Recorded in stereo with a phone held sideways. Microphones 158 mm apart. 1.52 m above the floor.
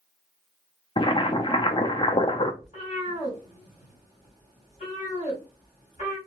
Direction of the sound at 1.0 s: 30° left (ahead or behind).